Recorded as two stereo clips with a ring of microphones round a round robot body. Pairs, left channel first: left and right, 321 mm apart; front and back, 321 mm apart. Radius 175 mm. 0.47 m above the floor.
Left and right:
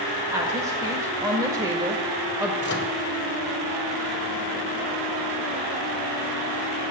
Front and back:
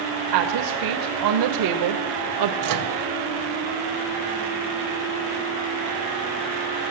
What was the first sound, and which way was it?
A woman speaking, 170° right.